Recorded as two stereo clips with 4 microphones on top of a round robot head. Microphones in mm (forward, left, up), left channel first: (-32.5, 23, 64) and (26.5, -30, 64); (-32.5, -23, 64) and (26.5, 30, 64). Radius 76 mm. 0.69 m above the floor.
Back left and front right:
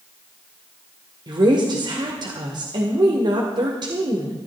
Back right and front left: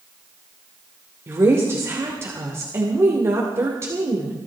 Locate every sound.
1.3 s a woman speaking: 15° right, 2.5 m